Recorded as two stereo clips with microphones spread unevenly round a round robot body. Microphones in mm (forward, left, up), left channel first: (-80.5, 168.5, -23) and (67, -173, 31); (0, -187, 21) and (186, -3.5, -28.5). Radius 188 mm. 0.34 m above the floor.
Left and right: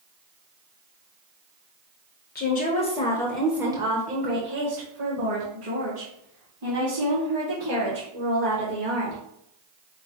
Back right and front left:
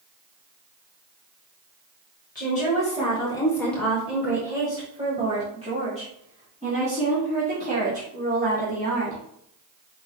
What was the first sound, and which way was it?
A woman speaking, 160° left.